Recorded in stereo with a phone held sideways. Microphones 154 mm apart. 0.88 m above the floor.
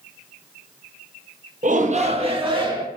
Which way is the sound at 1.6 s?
55° right (ahead or behind).